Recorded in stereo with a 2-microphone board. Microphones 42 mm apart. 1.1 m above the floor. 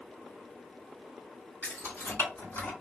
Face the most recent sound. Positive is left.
turn(degrees=85)